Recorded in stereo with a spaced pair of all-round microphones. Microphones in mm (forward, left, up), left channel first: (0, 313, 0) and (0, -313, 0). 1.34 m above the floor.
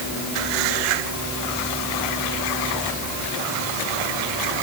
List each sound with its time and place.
Only background noise.